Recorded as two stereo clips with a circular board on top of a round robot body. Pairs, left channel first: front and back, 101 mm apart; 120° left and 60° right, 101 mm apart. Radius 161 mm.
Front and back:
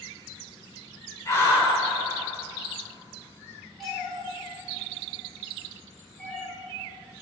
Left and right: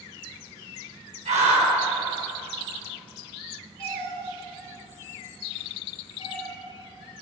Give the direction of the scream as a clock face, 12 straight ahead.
2 o'clock.